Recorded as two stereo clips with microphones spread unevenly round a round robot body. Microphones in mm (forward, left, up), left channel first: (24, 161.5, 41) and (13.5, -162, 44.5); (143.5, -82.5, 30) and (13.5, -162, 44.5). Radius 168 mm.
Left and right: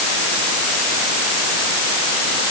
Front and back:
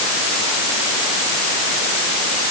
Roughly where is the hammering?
No hammering in this recording.